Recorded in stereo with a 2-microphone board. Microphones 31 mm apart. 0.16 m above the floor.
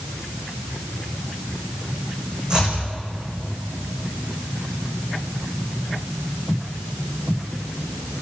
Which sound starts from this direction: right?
Chopping, at 2.5 s.